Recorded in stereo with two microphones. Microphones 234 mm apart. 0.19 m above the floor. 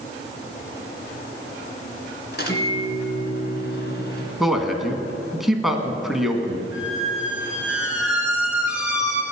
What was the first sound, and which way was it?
A microwave, 45° left (ahead or behind).